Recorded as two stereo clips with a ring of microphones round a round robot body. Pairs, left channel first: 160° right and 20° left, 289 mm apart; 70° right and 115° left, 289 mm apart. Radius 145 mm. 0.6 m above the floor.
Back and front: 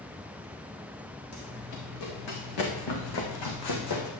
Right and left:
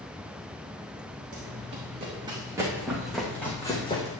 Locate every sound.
1.3 s running footsteps: 175° left, 3 m; by 4.1 s 140° right, 2 m